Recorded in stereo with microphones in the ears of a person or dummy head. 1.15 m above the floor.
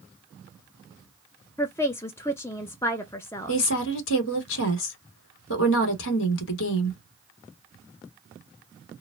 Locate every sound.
1.6 s a woman speaking: 15° left (ahead or behind), 0.7 m
3.5 s a woman speaking: 65° left (ahead or behind), 0.9 m